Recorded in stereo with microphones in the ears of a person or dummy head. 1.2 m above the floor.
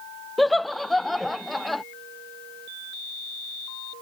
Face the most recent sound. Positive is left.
turn(degrees=0)  # may be behind; listen again after turning